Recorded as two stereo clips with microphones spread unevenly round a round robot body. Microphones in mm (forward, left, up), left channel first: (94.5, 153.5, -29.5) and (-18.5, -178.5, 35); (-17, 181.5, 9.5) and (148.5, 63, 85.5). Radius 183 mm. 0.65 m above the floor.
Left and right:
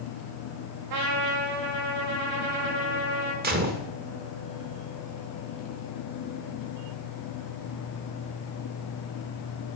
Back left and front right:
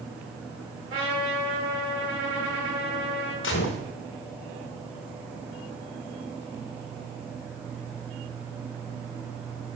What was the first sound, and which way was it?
A trumpet, 90° right.